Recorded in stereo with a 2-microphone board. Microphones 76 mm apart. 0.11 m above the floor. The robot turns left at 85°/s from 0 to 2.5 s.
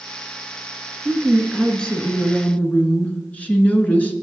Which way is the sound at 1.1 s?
10° right (ahead or behind).